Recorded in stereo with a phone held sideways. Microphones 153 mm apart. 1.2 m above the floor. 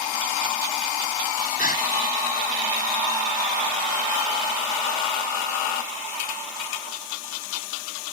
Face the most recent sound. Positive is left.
turn(degrees=65)  # may be behind; listen again after turning